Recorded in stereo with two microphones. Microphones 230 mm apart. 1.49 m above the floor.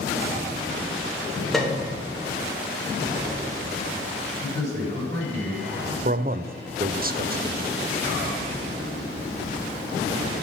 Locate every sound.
1.5 s a piano: centre (ahead or behind), 1.4 m
4.4 s a man speaking: 45° right (ahead or behind), 4.5 m
6.0 s a man speaking: 40° right (ahead or behind), 0.5 m